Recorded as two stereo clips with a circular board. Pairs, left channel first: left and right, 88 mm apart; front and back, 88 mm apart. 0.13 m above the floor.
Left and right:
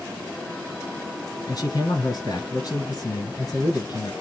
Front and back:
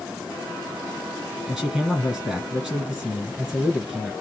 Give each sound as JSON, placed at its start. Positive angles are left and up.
{"t": 1.5, "sound": "a man speaking", "azimuth_deg": 95, "distance_m": 2.5}